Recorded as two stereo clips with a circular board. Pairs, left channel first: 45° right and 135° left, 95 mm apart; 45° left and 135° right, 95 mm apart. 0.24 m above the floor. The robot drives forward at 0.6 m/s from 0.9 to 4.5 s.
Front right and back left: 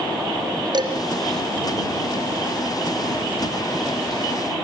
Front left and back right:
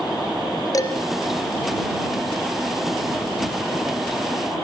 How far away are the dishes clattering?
About 2.5 m.